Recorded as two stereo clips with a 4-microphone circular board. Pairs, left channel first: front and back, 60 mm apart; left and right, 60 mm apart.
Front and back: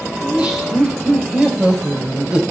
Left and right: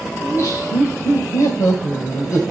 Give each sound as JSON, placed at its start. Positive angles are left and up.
{"t": 0.2, "sound": "laughter", "azimuth_deg": 110, "distance_m": 3.0}